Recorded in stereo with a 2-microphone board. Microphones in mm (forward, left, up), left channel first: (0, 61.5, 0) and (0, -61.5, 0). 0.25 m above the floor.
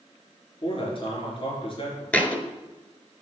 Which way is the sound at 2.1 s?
10° left (ahead or behind).